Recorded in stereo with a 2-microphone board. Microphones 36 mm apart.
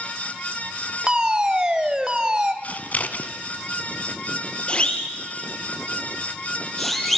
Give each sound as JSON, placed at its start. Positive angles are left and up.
{"t": 1.1, "sound": "a fire alarm", "side_deg": -20, "distance_m": 1.9}
{"t": 2.6, "sound": "scissors", "side_deg": 50, "distance_m": 1.6}
{"t": 4.7, "sound": "a siren", "side_deg": 30, "distance_m": 5.0}